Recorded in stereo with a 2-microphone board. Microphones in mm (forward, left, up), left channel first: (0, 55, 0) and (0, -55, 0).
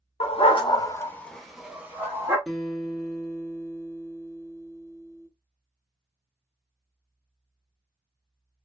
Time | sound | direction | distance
0.2 | a dog barking | 60° left (ahead or behind) | 0.7 m
2.5 | a guitar | centre (ahead or behind) | 0.8 m